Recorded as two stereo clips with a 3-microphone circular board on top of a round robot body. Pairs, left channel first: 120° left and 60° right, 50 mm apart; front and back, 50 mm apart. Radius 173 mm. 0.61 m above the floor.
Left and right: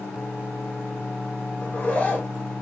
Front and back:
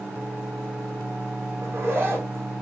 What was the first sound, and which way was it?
A zipper, 170° left.